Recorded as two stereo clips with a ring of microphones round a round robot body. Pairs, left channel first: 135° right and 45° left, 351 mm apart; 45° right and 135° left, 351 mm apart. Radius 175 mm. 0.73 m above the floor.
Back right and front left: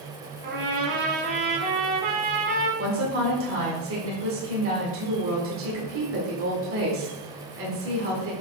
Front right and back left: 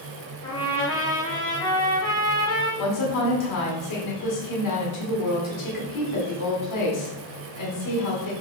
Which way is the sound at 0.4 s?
30° left.